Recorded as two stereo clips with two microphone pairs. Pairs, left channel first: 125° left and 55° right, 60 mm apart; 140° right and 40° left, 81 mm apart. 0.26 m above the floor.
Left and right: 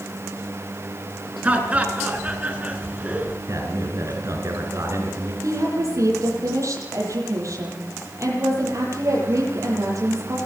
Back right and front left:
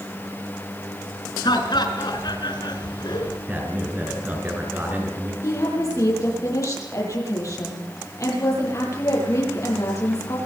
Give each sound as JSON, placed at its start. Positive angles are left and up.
{"t": 1.4, "sound": "laughter", "azimuth_deg": -125, "distance_m": 4.0}
{"t": 3.5, "sound": "a man speaking", "azimuth_deg": -30, "distance_m": 4.5}
{"t": 5.4, "sound": "a woman speaking", "azimuth_deg": -90, "distance_m": 9.5}